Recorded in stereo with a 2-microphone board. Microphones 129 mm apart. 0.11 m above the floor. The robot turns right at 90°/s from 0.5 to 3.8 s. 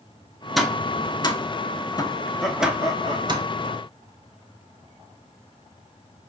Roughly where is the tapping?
Centre.